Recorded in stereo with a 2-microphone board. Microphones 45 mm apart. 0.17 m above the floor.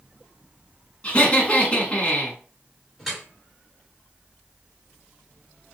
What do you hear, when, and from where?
1.0 s laughter: 25° left (ahead or behind), 1.7 m
3.0 s dripping: 5° right (ahead or behind), 3 m